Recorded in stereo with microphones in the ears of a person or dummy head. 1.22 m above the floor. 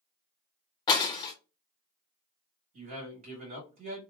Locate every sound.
0.9 s breaking glass: 20° left (ahead or behind), 0.6 m
2.7 s a man speaking: 35° right (ahead or behind), 1.7 m